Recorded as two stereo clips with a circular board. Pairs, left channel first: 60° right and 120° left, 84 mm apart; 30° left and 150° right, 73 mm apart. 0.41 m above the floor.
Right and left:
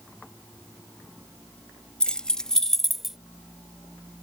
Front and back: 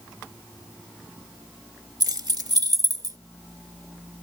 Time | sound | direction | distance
2.0 | keys jangling | 140° right | ?